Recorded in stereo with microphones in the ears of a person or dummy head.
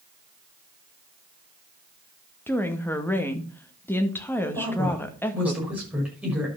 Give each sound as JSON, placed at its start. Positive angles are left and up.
{"t": 2.5, "sound": "a woman speaking", "side_deg": 5, "distance_m": 1.9}
{"t": 4.5, "sound": "a woman speaking", "side_deg": -10, "distance_m": 6.5}